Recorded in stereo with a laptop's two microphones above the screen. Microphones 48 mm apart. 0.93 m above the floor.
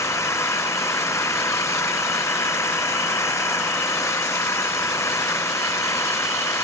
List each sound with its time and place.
0.0 s an engine running: 80° left